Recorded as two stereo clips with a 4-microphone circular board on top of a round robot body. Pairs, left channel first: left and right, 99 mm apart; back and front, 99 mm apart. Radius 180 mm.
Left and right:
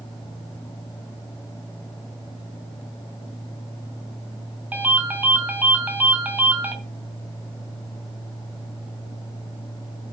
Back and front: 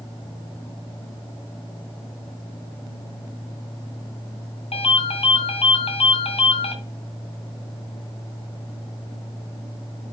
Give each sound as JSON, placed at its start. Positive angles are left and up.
{"t": 4.7, "sound": "a ringtone", "azimuth_deg": -165, "distance_m": 2.0}